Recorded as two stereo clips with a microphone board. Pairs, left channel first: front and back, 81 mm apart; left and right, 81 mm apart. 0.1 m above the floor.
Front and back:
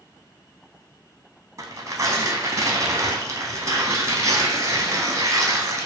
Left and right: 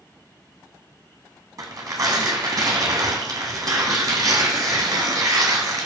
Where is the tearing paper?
130° right, 0.8 m.